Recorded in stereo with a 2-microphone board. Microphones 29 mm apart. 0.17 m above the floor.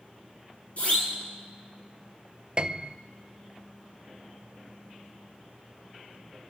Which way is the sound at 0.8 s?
55° left (ahead or behind).